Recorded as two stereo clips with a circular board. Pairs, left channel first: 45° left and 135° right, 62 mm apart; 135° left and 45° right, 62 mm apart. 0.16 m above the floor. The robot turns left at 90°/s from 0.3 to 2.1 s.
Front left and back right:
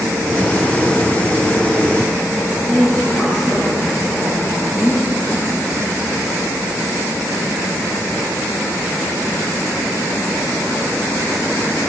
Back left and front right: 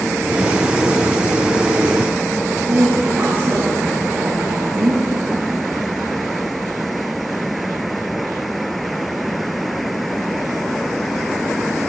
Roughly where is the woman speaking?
Ahead right.